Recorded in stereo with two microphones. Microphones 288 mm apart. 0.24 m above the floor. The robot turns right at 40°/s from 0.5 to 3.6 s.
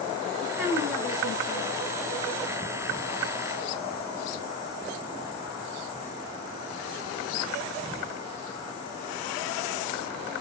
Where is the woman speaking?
10° right, 4 m; by 1.7 s 35° left, 4 m.